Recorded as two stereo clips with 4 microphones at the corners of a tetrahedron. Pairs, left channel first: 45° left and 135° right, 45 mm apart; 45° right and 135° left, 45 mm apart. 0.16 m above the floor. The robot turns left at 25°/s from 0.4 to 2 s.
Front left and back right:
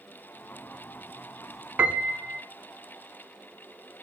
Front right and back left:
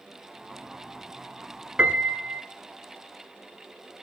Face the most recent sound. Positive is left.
turn(degrees=180)